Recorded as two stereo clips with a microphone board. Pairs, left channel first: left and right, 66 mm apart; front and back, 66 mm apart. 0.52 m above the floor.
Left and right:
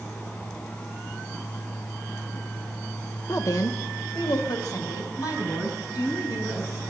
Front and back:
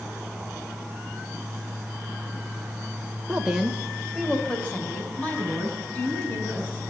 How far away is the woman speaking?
About 1.7 m.